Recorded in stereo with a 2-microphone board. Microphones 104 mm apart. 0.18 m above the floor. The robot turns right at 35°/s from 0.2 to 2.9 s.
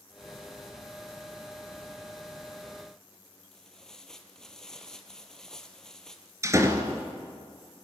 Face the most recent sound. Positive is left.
turn(degrees=-30)  # may be behind; listen again after turning